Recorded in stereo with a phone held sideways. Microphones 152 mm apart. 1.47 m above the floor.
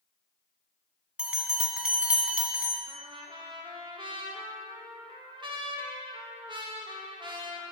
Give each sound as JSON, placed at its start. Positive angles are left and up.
{"t": 1.2, "sound": "a bell", "side_deg": -5, "distance_m": 1.8}
{"t": 2.9, "sound": "a trumpet", "side_deg": -30, "distance_m": 1.4}